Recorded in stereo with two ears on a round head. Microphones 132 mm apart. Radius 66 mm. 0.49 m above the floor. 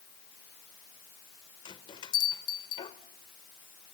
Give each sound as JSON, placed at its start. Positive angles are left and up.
{"t": 1.6, "sound": "a bell", "side_deg": 35, "distance_m": 1.6}